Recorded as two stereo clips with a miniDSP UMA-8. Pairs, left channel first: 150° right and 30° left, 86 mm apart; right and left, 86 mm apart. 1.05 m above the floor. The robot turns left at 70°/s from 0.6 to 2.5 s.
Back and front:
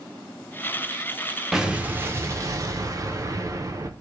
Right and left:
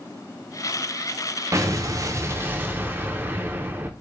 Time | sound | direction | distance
1.5 | an explosion | 110° left | 0.6 m